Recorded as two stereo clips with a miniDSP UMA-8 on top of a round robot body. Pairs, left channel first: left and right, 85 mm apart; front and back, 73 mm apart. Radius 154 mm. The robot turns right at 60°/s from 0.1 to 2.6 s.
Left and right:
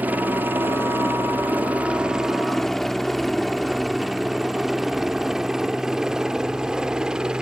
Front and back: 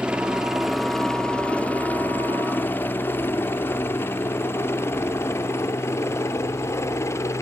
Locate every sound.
0.0 s a helicopter: 125° right; by 7.4 s 15° right